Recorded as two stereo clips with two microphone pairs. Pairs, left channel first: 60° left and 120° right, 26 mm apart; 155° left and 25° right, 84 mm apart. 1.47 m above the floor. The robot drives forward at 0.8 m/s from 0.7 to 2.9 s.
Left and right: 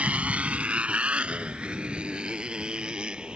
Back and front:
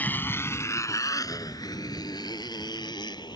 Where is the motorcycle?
135° right; by 3.4 s 170° right.